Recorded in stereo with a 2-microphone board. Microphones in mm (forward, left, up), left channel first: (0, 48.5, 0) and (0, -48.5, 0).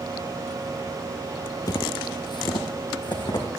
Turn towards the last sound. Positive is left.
turn(degrees=45)  # may be behind; listen again after turning